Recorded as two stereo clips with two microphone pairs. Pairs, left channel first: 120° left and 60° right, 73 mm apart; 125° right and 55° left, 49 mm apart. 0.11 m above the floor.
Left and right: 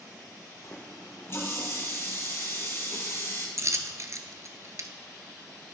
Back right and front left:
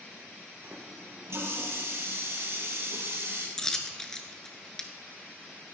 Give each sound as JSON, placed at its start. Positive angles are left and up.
{"t": 0.6, "sound": "a running tap", "azimuth_deg": 70, "distance_m": 2.0}
{"t": 3.6, "sound": "a dropped coin", "azimuth_deg": -55, "distance_m": 0.9}